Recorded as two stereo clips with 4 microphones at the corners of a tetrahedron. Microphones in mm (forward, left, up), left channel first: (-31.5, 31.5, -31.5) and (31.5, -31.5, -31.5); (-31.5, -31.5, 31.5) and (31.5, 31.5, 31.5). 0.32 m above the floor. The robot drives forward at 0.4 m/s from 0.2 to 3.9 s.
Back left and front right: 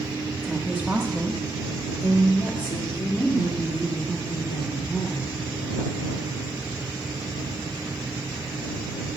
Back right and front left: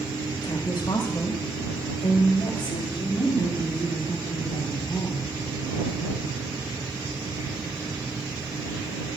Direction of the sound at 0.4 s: 125° right.